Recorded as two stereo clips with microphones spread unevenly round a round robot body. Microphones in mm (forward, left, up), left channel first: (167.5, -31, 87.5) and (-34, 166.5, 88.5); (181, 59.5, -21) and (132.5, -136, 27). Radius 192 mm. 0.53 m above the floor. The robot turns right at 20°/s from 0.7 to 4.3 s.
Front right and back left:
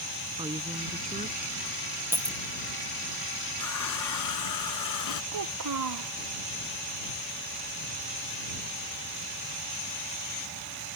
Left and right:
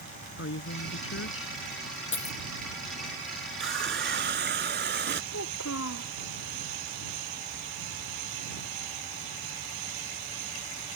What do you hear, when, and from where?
0.4 s a woman speaking: 65° left; by 1.6 s 80° left
2.1 s a dropped coin: 50° left; by 2.4 s 60° left
3.6 s a running tap: 85° right; by 5.2 s 75° right
5.3 s a child speaking: 125° left